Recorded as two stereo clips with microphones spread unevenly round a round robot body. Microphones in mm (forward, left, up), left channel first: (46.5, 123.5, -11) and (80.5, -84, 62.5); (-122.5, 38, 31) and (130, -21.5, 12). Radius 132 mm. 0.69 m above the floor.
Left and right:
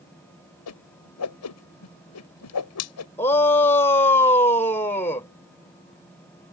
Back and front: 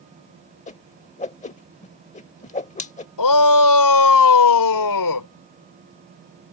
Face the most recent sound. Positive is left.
turn(degrees=175)